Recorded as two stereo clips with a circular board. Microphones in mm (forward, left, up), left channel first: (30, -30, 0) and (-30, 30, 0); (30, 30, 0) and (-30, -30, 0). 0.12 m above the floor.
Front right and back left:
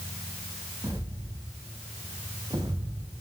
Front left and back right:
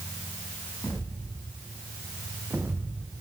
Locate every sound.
0.8 s footsteps: 115° left, 2 m; by 3.2 s straight behind, 1.4 m